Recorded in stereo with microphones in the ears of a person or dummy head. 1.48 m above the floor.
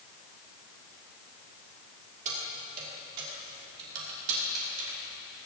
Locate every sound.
2.2 s keys jangling: 40° right (ahead or behind), 2.5 m; by 5.5 s 80° right, 3.5 m